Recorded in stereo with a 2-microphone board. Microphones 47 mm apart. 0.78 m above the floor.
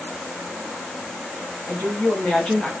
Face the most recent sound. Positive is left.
turn(degrees=20)  # may be behind; listen again after turning